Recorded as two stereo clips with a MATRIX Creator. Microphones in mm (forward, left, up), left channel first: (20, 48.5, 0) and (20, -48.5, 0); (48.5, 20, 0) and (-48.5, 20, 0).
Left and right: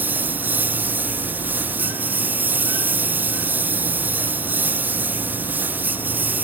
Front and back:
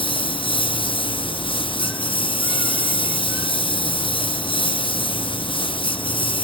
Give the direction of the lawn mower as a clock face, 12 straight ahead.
1 o'clock.